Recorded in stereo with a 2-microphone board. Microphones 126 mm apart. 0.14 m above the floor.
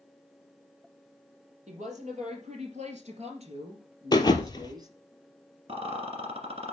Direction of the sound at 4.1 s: 35° left (ahead or behind).